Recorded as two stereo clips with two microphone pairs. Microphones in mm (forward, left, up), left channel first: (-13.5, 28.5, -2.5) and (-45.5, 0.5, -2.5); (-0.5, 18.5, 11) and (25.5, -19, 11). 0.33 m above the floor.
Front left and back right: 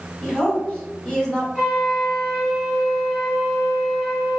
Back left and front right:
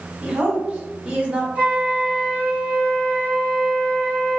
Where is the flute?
50° right, 1.4 m.